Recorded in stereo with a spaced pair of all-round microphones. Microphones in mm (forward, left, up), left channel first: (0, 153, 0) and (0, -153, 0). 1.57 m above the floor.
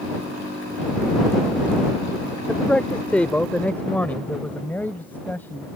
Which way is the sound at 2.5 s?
5° left (ahead or behind).